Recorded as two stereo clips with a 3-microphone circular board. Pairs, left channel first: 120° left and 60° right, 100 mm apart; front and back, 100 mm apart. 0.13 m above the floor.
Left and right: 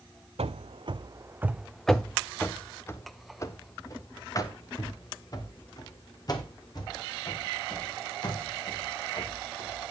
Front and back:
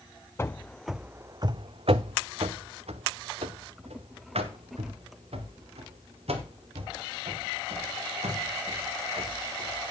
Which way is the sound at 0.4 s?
65° right.